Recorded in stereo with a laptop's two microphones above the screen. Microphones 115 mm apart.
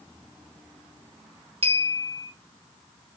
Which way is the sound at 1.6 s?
60° right (ahead or behind).